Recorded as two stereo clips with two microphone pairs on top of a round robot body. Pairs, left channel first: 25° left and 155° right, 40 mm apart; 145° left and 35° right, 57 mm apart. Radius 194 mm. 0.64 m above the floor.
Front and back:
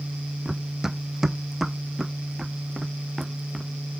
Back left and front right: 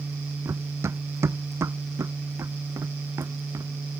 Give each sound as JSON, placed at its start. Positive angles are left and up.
{"t": 0.5, "sound": "running footsteps", "azimuth_deg": -75}